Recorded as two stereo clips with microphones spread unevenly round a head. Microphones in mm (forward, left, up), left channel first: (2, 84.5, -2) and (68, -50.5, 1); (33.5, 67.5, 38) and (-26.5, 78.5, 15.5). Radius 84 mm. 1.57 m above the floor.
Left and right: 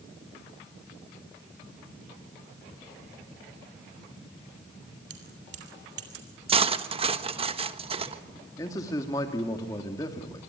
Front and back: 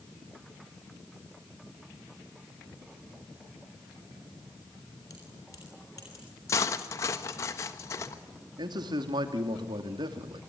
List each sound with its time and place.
5.1 s keys jangling: 75° right, 3 m
6.5 s cutlery clinking: 20° right, 1.2 m
8.6 s a man speaking: 170° right, 2.5 m